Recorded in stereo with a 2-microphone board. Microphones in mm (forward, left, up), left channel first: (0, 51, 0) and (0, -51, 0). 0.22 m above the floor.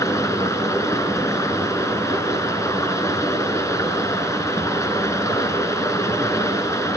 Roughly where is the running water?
Left.